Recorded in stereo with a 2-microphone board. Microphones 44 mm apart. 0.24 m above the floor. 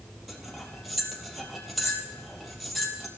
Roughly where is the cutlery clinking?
Centre.